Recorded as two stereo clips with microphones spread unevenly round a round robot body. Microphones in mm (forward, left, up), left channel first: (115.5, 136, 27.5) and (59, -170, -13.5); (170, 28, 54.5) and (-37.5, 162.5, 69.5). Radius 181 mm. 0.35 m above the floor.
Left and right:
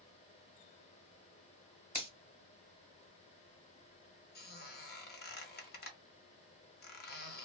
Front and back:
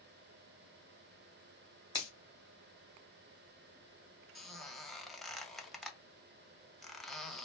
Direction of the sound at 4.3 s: 50° left.